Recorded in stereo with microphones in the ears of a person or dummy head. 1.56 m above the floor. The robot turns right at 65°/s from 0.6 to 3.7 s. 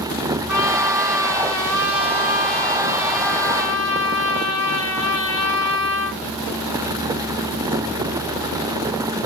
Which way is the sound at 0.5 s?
165° right.